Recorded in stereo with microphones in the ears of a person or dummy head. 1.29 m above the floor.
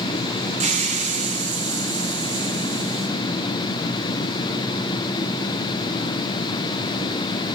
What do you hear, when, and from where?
0.6 s a hiss: 40° right (ahead or behind), 0.9 m